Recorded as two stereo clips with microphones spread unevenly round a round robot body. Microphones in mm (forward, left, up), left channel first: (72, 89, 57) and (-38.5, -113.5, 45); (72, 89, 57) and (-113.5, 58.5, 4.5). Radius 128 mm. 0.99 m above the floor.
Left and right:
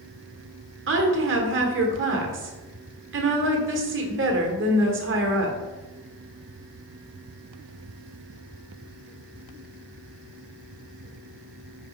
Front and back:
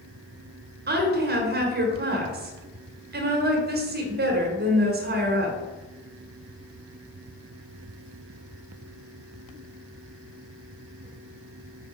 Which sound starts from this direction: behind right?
A woman speaking, at 0.9 s.